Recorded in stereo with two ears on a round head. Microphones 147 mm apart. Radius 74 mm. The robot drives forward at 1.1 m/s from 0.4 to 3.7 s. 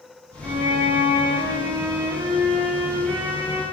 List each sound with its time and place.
0.4 s a violin: 35° right (ahead or behind), 8.5 m; by 3.6 s 25° right (ahead or behind), 11.5 m